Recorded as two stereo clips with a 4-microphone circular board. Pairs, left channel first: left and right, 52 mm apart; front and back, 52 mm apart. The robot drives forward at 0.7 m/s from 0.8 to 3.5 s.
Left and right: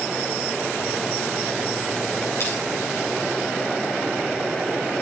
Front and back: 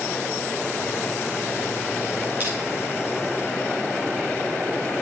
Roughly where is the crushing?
Behind left.